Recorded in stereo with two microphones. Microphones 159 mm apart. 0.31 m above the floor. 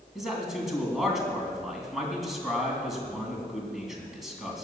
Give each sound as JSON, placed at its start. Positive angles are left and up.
{"t": 0.1, "sound": "a man speaking", "side_deg": 0, "distance_m": 3.0}